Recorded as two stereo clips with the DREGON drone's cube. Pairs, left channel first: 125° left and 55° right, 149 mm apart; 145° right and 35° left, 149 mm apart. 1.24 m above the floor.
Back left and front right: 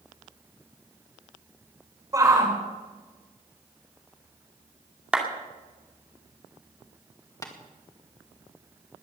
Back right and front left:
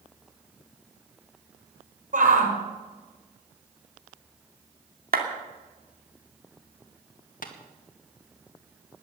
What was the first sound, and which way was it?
A shout, 10° left.